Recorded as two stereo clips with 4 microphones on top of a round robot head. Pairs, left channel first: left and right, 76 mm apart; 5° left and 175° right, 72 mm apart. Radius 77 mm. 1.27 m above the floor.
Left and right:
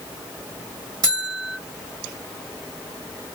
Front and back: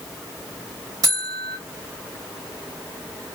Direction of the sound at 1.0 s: 130° right.